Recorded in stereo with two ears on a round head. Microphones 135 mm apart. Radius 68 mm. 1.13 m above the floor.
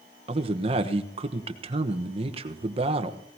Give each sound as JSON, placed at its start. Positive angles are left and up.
{"t": 0.3, "sound": "a man speaking", "side_deg": -35, "distance_m": 1.1}